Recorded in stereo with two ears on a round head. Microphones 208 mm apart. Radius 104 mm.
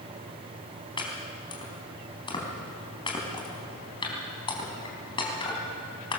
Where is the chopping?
20° left (ahead or behind), 3.5 m.